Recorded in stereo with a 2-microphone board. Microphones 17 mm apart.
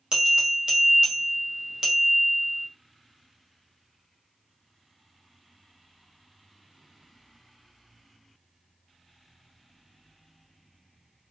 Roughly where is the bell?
Right.